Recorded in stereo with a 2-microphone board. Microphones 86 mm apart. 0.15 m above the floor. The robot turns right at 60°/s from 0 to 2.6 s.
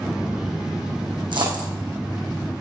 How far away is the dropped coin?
About 3.5 m.